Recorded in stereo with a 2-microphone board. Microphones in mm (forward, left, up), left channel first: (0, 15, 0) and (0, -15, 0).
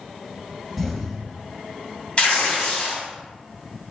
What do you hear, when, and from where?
0.8 s an explosion: 10° left (ahead or behind), 1.5 m
2.2 s tearing paper: 40° left (ahead or behind), 2.0 m